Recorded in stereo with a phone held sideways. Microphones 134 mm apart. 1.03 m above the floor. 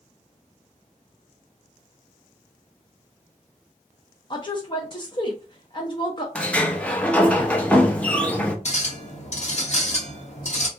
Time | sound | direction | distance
4.3 | a woman speaking | 35° left (ahead or behind) | 0.6 m
6.3 | a sliding door | 10° left (ahead or behind) | 0.5 m
8.7 | a clink | 55° left (ahead or behind) | 1.1 m